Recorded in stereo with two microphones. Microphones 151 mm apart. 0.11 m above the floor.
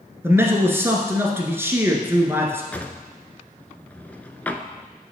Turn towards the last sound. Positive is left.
turn(degrees=10)  # may be behind; listen again after turning